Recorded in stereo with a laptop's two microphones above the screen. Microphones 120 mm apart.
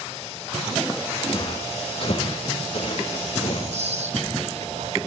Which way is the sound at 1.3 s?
50° left (ahead or behind).